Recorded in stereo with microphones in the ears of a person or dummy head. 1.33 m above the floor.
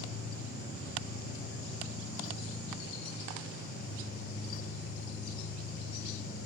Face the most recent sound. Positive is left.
turn(degrees=60)  # may be behind; listen again after turning